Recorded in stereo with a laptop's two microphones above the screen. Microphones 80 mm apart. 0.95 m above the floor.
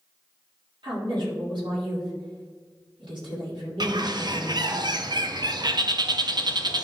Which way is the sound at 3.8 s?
60° right (ahead or behind).